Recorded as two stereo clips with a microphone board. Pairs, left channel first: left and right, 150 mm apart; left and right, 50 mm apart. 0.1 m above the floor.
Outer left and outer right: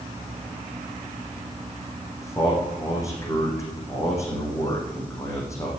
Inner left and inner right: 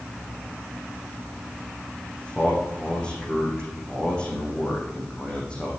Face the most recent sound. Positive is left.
turn(degrees=20)  # may be behind; listen again after turning